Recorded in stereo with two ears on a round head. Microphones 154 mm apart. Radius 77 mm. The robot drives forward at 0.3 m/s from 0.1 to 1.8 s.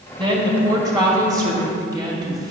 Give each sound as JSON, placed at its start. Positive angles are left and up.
{"t": 0.2, "sound": "a woman speaking", "side_deg": -30, "distance_m": 2.0}